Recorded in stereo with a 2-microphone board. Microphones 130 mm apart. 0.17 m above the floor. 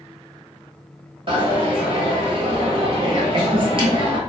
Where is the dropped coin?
45° right (ahead or behind), 1.1 m.